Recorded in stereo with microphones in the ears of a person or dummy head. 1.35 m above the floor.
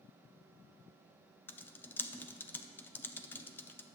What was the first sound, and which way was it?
Typing on a keyboard, centre (ahead or behind).